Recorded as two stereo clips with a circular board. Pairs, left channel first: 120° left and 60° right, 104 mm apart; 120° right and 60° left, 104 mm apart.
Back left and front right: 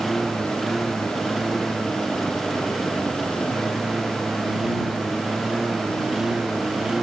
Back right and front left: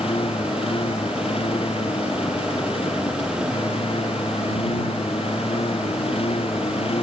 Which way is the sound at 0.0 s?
150° right.